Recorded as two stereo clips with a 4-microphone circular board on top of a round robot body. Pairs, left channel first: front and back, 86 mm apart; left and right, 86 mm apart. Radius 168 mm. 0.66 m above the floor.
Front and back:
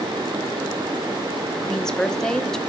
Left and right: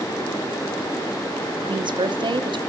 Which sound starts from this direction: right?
A woman speaking, at 1.6 s.